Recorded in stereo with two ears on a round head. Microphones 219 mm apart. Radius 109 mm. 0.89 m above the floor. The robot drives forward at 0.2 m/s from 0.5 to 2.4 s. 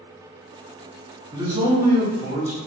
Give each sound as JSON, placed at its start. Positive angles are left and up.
{"t": 1.3, "sound": "a man speaking", "side_deg": -15, "distance_m": 0.9}